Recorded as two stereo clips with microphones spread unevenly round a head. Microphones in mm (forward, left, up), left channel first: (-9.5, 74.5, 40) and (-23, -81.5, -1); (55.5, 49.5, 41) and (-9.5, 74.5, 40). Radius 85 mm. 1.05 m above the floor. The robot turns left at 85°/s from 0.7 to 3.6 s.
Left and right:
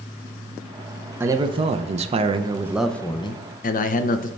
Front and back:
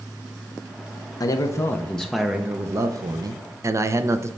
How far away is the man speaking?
About 0.6 m.